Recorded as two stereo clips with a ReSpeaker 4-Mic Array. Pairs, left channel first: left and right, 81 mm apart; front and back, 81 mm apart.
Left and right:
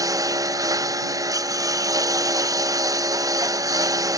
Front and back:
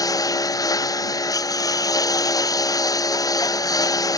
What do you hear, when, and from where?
0.0 s a lawn mower: 45° right